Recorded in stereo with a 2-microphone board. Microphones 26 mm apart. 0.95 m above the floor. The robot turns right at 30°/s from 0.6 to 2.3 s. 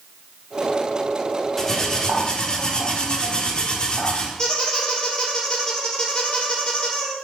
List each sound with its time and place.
1.6 s cutlery clinking: 15° left (ahead or behind), 1.5 m; by 4.3 s 35° left (ahead or behind), 1.5 m
4.4 s a squeak: 40° left (ahead or behind), 3 m